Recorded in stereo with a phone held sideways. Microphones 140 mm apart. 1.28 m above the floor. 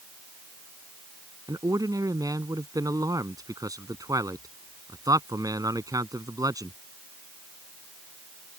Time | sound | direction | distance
1.5 | a man speaking | 25° right (ahead or behind) | ?